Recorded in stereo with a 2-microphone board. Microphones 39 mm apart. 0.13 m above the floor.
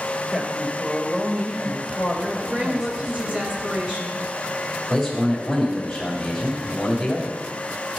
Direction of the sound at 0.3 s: 15° right (ahead or behind).